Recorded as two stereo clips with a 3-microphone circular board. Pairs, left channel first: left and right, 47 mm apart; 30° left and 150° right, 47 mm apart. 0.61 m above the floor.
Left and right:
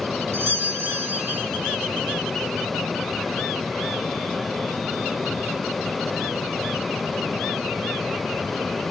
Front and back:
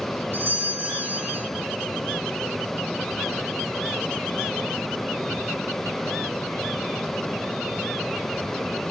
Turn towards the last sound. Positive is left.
turn(degrees=-120)